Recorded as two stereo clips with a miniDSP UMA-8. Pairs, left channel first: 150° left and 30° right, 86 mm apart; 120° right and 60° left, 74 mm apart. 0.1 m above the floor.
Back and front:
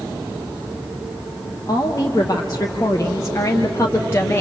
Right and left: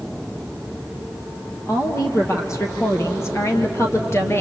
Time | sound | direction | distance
1.7 | a woman speaking | 165° right | 3 m